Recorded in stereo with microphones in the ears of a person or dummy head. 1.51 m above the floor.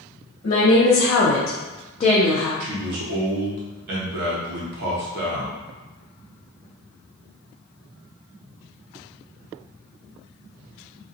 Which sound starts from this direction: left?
A woman speaking, at 0.4 s.